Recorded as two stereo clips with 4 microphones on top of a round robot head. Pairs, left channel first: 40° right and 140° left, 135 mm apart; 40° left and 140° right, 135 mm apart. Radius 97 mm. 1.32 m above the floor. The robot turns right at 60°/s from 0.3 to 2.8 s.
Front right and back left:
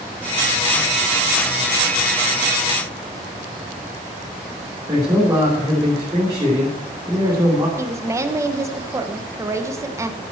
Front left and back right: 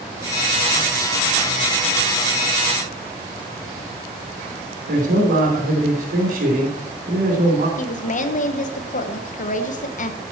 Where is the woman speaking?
70° left, 1.2 m.